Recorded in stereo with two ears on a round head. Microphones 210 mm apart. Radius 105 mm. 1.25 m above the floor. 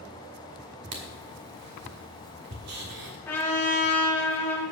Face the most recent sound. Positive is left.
turn(degrees=10)  # may be behind; listen again after turning